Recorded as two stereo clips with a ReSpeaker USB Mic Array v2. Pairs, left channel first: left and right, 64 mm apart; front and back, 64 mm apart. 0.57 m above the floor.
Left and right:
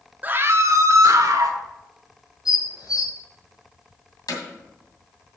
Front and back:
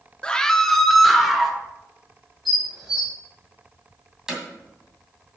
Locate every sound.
0.2 s a scream: 60° right, 0.6 m; by 1.6 s 95° right, 1.5 m
2.5 s dishes clattering: 95° left, 4.5 m
4.3 s hammering: 100° left, 2 m